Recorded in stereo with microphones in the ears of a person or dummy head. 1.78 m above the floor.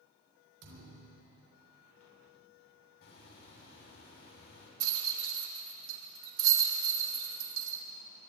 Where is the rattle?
75° right (ahead or behind), 1.9 m.